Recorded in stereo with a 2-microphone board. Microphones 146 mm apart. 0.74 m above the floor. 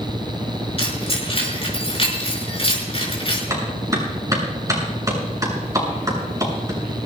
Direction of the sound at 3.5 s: 25° right (ahead or behind).